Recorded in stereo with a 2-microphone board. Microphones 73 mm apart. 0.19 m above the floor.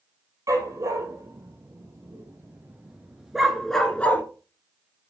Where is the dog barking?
45° right (ahead or behind), 2.5 m; by 4.2 s 25° left (ahead or behind), 1.1 m.